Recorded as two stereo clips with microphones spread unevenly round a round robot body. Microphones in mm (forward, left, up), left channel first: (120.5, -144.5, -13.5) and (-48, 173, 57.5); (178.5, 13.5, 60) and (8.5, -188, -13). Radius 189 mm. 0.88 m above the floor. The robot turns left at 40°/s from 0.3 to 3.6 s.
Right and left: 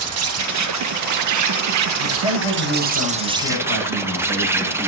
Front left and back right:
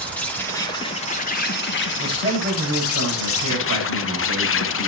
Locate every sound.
0.0 s an insect: 155° left, 1.1 m; by 4.9 s 25° left, 1.1 m
2.0 s a man speaking: 55° right, 8 m; by 4.9 s 115° right, 8 m